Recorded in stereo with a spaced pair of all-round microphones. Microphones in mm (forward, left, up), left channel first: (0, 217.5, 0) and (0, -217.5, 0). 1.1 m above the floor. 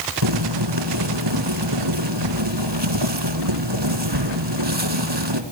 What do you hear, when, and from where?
0.2 s boiling: 70° right (ahead or behind), 2.5 m